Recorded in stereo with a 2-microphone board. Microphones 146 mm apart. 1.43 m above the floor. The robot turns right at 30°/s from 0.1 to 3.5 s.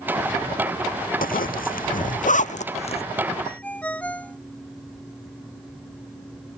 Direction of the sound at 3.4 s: 10° left (ahead or behind).